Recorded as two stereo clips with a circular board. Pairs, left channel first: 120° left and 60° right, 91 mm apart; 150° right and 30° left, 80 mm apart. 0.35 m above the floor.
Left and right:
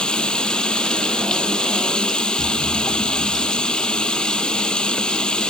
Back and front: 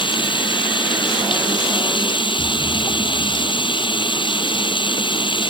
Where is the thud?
135° left.